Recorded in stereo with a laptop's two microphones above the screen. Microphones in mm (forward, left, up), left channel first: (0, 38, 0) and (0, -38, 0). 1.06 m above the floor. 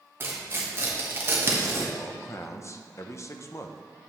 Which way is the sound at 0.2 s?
30° right (ahead or behind).